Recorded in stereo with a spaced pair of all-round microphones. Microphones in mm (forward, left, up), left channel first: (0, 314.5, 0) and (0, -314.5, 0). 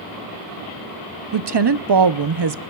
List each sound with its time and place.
1.3 s a woman speaking: 45° right (ahead or behind), 0.6 m